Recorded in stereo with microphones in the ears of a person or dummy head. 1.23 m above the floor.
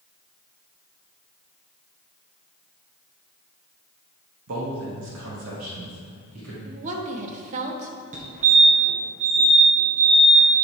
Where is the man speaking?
75° right (ahead or behind), 1.5 m; by 6.5 s 90° right, 2.5 m.